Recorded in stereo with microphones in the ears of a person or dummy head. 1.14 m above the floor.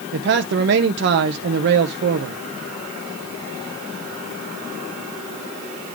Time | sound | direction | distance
0.1 | a man speaking | 55° right (ahead or behind) | 0.7 m